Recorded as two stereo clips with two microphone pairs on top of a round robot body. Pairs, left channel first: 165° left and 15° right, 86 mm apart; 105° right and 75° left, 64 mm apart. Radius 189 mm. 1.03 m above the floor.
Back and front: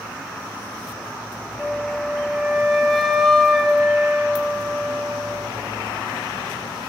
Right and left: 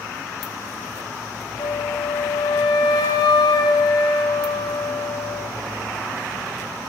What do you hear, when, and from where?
1.6 s a flute: 105° right, 1.2 m